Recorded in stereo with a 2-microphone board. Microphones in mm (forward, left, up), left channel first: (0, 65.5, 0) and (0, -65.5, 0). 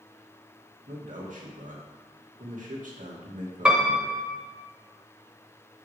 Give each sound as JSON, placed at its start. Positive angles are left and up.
{"t": 0.9, "sound": "a man speaking", "side_deg": -85, "distance_m": 2.5}
{"t": 3.6, "sound": "a piano", "side_deg": -10, "distance_m": 1.5}